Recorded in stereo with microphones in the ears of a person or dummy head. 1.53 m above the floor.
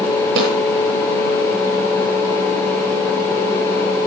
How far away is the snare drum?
About 7.5 m.